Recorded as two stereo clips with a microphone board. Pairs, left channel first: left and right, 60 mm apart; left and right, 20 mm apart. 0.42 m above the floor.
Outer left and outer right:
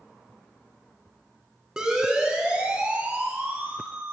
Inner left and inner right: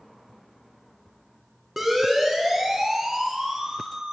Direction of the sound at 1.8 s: 15° right (ahead or behind).